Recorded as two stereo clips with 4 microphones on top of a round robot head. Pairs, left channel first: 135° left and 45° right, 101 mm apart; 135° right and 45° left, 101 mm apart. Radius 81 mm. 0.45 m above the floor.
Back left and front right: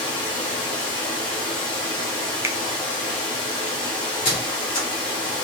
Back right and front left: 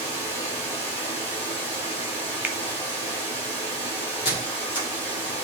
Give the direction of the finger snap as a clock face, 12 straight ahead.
12 o'clock.